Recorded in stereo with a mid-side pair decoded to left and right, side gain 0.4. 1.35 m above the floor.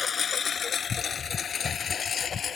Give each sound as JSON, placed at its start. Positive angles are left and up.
{"t": 0.0, "sound": "a lawn mower", "azimuth_deg": 55}